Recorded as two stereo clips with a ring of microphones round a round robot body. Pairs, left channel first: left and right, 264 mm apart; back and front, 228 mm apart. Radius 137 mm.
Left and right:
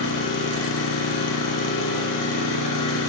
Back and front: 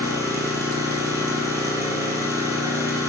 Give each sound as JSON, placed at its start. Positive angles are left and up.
{"t": 0.0, "sound": "an engine running", "azimuth_deg": 75, "distance_m": 7.5}